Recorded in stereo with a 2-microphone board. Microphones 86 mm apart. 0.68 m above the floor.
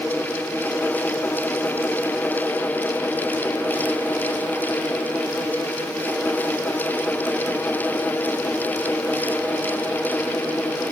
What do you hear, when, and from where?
Only background noise.